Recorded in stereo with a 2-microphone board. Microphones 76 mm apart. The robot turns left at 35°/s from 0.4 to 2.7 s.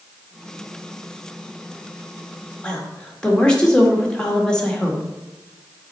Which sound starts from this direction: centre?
A woman speaking, at 2.6 s.